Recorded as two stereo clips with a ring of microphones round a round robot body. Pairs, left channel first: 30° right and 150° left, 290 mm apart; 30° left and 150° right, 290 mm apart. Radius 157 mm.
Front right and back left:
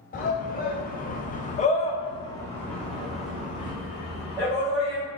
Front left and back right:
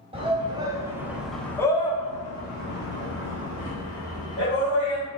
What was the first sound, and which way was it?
A shout, 85° right.